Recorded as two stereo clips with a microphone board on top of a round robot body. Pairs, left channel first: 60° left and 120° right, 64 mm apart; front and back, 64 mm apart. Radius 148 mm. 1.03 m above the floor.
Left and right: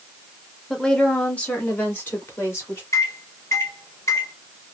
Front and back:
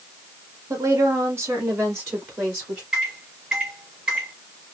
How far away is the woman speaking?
About 1.3 m.